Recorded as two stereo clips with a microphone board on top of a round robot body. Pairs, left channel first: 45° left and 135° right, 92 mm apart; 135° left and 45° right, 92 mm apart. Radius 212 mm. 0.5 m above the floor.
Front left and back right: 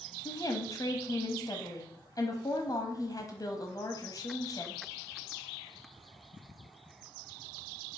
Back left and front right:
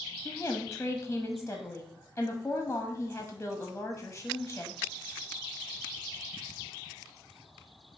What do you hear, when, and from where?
0.2 s a woman speaking: 70° left, 1.3 m